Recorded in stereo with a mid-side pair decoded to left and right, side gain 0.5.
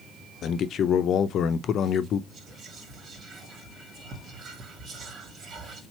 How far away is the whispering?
About 1.7 m.